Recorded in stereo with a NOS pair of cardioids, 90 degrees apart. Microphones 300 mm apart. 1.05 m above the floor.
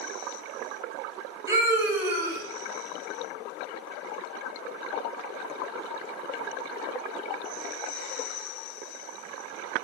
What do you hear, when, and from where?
1.5 s a scream: 10° right, 1.6 m